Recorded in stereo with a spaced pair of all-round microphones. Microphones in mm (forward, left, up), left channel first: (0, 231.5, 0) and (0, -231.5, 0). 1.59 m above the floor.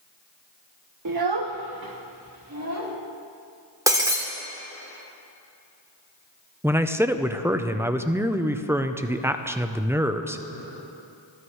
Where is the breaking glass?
5° right (ahead or behind), 1.7 m.